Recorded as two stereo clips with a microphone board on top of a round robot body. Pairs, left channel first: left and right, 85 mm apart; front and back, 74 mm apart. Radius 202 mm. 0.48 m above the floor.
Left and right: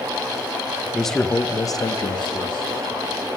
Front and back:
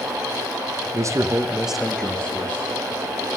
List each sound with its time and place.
0.9 s a man speaking: 175° right, 1.0 m; by 2.7 s 65° left, 1.6 m